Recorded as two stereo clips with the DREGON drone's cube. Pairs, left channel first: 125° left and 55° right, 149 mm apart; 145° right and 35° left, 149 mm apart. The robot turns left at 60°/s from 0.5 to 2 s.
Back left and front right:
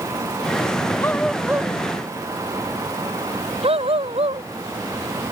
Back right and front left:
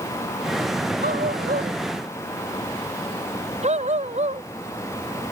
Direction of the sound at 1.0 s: 55° left.